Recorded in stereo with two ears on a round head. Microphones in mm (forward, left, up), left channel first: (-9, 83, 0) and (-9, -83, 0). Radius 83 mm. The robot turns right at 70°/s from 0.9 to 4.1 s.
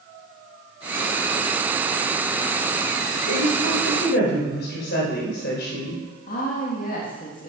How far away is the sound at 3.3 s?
About 3.5 m.